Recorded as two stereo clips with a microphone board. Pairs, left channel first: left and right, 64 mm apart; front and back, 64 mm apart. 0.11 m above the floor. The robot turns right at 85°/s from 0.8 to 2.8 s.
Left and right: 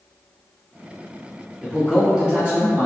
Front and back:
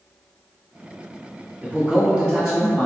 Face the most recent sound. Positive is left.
turn(degrees=-90)